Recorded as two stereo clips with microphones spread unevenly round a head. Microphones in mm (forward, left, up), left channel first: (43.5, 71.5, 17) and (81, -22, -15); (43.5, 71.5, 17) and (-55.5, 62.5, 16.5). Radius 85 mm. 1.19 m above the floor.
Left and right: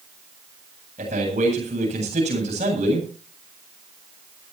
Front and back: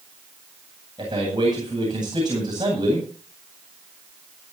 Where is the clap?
I don't hear a clap.